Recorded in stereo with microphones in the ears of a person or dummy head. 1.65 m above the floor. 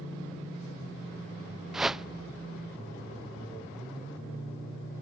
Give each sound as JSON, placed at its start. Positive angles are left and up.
{"t": 1.7, "sound": "a whoosh", "side_deg": -5}